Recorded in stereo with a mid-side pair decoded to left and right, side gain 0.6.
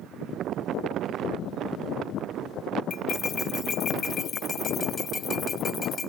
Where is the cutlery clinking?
35° left.